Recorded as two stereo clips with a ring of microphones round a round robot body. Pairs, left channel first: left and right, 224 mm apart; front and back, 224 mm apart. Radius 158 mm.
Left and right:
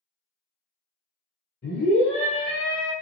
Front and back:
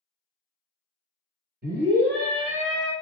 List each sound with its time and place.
1.6 s a scream: 140° left, 1.5 m; by 2.9 s 145° left, 2.5 m